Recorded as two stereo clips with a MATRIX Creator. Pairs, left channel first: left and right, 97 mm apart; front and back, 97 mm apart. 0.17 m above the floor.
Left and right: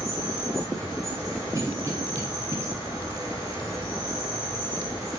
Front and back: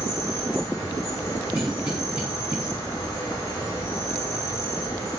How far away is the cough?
About 1.4 m.